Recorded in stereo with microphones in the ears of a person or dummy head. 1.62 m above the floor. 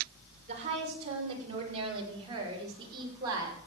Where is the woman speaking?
40° right (ahead or behind), 6.5 m; by 3.6 s 20° right (ahead or behind), 6 m.